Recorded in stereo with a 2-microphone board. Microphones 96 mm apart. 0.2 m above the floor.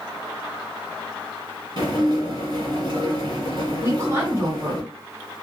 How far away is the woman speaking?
About 1.5 m.